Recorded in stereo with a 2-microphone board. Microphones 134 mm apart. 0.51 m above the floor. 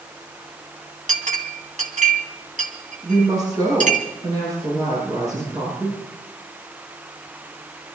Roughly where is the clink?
Right.